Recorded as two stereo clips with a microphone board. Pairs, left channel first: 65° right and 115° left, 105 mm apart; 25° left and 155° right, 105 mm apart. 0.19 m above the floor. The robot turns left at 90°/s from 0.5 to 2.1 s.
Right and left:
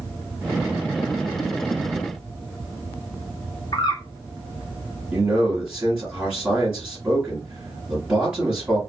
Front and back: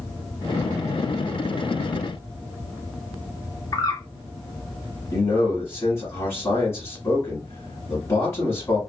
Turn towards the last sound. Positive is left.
turn(degrees=50)